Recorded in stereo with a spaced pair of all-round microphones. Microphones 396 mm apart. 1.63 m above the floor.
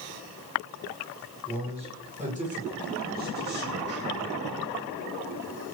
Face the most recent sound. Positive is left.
turn(degrees=-30)  # may be behind; listen again after turning